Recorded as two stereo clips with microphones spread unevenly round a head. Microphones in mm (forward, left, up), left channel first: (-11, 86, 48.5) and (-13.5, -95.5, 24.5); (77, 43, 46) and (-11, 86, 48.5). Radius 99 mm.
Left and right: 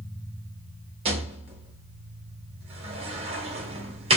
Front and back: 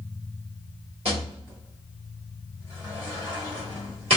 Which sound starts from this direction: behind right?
A rattle, at 1.1 s.